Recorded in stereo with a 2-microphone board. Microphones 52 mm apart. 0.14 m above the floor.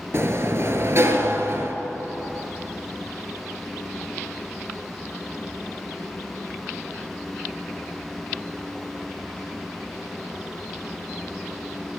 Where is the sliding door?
55° right (ahead or behind), 1.0 m.